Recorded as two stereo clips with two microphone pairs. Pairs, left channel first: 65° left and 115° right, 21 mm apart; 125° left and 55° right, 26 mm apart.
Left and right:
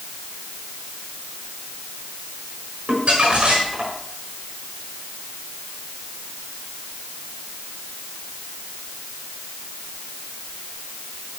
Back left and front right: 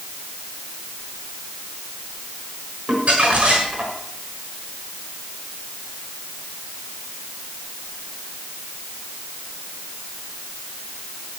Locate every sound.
2.9 s crumpling: 85° right, 6 m